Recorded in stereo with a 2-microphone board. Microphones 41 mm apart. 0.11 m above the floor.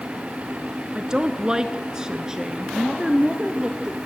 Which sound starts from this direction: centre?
A woman speaking, at 0.9 s.